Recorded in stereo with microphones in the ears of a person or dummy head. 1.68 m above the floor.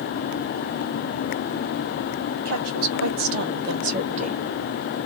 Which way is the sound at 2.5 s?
80° right.